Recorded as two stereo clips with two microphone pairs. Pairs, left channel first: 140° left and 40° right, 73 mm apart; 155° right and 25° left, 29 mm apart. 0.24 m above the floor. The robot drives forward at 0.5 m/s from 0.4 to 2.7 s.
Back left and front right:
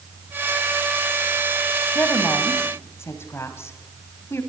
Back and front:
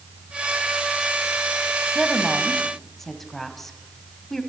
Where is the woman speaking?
100° left, 1.3 m; by 4.4 s 130° left, 1.4 m.